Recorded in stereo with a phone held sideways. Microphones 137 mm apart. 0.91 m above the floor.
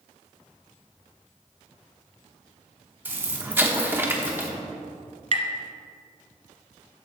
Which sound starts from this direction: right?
Tapping, at 5.3 s.